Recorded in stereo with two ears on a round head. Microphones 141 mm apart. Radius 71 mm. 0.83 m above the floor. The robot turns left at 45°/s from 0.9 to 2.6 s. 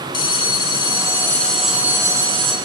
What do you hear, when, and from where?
0.1 s a bell: 30° left, 1.3 m; by 2.5 s 45° right, 1.3 m